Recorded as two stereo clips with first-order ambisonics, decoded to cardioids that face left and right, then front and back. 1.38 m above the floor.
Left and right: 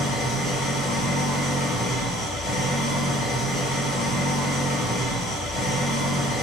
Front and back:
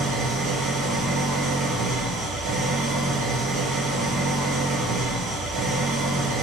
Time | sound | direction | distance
0.0 | an engine running | 135° left | 1.2 m